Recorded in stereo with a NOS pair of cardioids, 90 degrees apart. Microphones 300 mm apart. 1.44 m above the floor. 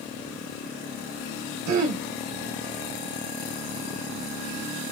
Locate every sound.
1.7 s throat clearing: 60° right, 1.1 m